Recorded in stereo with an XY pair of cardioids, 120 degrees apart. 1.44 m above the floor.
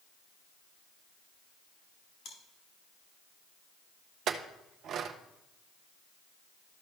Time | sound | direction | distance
2.2 | chewing | 65° left | 3.5 m
4.3 | a clink | 60° right | 0.9 m